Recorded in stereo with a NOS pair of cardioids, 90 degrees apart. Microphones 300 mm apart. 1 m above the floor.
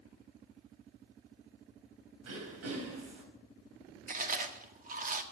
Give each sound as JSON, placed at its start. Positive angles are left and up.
{"t": 2.2, "sound": "throat clearing", "azimuth_deg": -65, "distance_m": 4.0}
{"t": 4.1, "sound": "chewing", "azimuth_deg": -30, "distance_m": 1.7}